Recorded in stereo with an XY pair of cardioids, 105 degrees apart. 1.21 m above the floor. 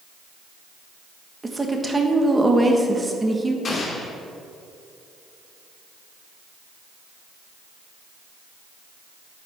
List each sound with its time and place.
1.4 s a woman speaking: 15° right, 1.3 m
3.6 s an explosion: 40° left, 1.7 m